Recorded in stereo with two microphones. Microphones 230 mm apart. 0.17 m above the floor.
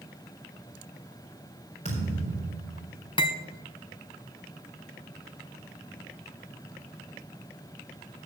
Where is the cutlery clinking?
25° left (ahead or behind), 0.8 m.